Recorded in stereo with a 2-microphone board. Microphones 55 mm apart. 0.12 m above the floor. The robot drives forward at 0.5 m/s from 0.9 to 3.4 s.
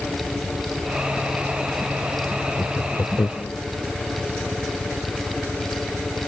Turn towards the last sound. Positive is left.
turn(degrees=70)  # may be behind; listen again after turning